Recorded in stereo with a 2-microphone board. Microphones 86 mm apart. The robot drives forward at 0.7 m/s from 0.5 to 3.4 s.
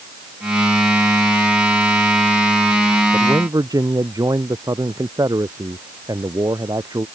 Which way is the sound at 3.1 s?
45° right (ahead or behind).